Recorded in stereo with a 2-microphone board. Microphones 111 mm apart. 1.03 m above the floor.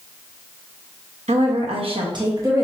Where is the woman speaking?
80° right, 1.0 m; by 2.6 s 20° right (ahead or behind), 1.1 m.